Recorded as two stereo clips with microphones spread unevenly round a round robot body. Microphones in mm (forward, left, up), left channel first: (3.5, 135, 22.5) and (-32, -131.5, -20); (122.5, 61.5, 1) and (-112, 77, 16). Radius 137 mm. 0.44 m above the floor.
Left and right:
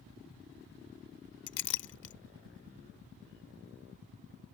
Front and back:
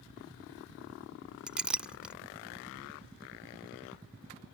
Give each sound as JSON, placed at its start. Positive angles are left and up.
{"t": 1.5, "sound": "a clink", "azimuth_deg": 85}